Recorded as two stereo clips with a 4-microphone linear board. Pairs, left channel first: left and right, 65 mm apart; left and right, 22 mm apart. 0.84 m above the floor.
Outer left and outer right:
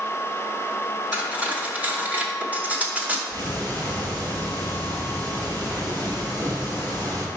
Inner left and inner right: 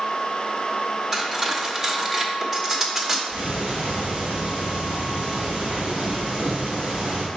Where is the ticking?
80° right, 1.7 m.